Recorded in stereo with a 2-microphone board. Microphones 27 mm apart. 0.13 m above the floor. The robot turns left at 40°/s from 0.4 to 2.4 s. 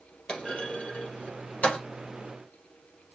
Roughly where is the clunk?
Left.